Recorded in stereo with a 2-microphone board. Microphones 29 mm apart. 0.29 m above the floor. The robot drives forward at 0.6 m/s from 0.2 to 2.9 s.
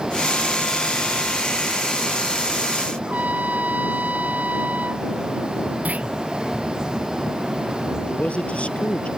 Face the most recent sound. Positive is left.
turn(degrees=45)  # may be behind; listen again after turning